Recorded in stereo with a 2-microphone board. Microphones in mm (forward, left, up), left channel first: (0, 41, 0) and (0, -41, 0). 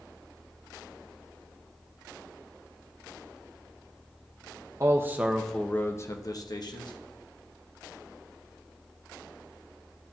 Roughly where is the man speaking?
Right.